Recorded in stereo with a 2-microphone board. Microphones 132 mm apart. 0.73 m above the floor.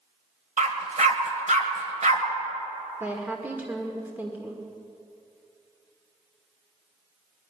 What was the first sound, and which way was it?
A dog barking, 65° right (ahead or behind).